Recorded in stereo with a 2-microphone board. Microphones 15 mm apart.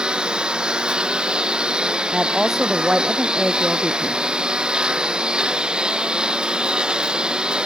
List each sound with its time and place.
0.0 s a lawn mower: 75° right (ahead or behind)
2.1 s a woman speaking: 35° right (ahead or behind)